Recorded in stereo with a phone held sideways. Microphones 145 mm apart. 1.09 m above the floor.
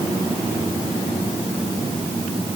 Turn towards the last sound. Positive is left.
No sound to turn to.